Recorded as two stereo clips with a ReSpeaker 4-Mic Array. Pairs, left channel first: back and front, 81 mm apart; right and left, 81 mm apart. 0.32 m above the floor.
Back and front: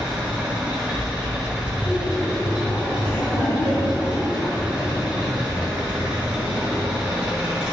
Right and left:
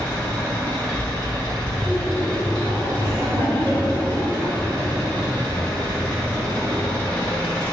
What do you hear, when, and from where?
0.0 s an engine running: 50° right, 1.3 m
1.7 s laughter: 130° left, 1.8 m